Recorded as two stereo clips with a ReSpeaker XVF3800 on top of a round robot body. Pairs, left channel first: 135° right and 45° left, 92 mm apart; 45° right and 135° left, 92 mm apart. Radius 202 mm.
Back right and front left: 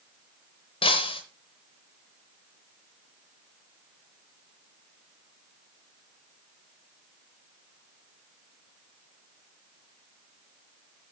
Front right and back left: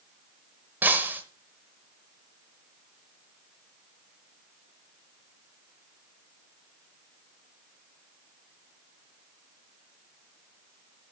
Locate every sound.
0.8 s breaking glass: 155° right, 0.8 m